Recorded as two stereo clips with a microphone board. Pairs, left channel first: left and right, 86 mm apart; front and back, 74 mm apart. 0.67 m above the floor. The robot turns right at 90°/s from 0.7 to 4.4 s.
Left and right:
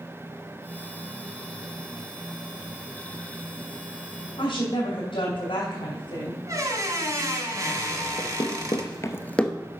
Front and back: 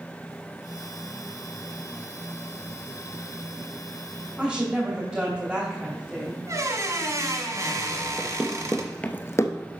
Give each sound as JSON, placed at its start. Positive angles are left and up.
{"t": 4.4, "sound": "a woman speaking", "azimuth_deg": 100, "distance_m": 3.0}
{"t": 6.5, "sound": "a squeak", "azimuth_deg": -140, "distance_m": 1.4}
{"t": 8.2, "sound": "running footsteps", "azimuth_deg": 105, "distance_m": 1.4}